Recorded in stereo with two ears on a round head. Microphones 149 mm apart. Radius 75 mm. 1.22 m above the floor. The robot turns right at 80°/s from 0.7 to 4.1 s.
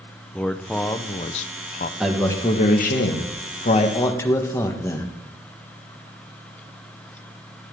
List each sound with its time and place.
0.3 s a man speaking: 5° left, 0.6 m; by 1.9 s 105° left, 0.6 m
2.0 s a man speaking: 5° right, 1.5 m; by 5.1 s 160° left, 1.5 m